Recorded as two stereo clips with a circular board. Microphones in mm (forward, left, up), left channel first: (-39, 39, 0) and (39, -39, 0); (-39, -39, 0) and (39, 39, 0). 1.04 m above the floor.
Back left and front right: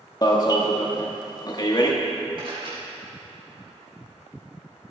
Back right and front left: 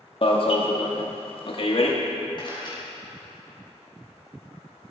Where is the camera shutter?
90° right, 4 m.